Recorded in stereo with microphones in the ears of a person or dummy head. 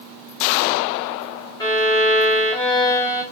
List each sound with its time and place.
1.6 s a violin: 20° left (ahead or behind), 0.8 m